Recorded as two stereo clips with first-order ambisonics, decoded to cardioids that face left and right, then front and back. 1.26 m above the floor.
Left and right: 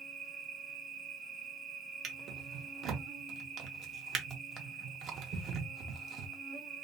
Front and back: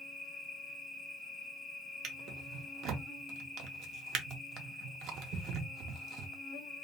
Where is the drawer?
140° right, 0.6 m.